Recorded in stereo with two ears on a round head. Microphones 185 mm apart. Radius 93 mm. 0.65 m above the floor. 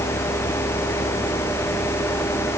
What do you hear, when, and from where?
Only background noise.